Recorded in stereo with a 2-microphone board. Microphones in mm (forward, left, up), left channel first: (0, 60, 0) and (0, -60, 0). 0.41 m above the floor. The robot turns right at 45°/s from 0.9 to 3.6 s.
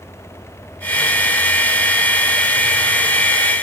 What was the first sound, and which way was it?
Only background noise.